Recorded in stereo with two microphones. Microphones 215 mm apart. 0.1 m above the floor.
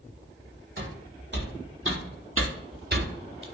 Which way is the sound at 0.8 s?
45° right (ahead or behind).